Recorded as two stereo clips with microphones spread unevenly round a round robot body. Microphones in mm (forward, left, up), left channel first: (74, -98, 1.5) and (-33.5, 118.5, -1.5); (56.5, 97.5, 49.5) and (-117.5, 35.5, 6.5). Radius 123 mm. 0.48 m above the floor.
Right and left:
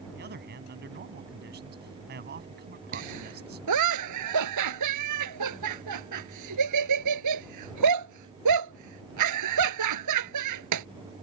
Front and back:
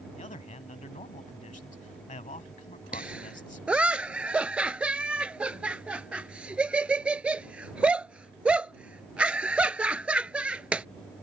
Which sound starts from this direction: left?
A man speaking, at 0.1 s.